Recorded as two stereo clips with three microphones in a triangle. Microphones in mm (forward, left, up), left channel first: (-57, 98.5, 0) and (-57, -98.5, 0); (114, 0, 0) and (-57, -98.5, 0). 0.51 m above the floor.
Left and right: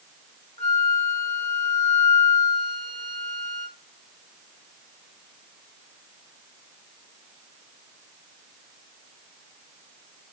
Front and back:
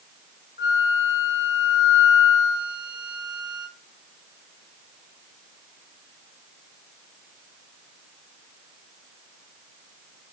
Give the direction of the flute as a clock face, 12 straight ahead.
7 o'clock.